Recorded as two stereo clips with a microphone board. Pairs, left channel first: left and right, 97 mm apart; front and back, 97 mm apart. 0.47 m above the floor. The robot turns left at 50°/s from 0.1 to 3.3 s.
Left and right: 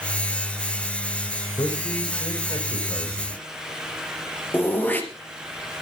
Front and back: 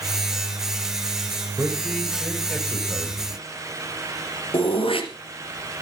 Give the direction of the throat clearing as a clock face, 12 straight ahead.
11 o'clock.